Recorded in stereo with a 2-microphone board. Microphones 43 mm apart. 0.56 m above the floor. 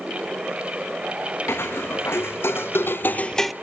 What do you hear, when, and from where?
1.5 s footsteps: 65° left (ahead or behind), 3 m; by 3.5 s 5° right (ahead or behind), 0.7 m